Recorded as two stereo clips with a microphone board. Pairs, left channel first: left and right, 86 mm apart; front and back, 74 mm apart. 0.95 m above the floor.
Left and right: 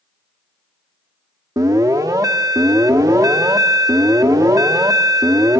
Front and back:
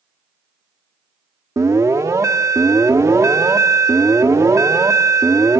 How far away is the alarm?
About 1.3 m.